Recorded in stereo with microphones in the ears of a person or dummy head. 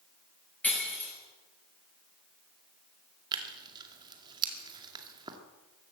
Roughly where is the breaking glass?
Centre.